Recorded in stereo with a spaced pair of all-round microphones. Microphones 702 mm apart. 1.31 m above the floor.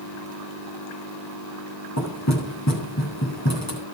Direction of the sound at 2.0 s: 20° left (ahead or behind).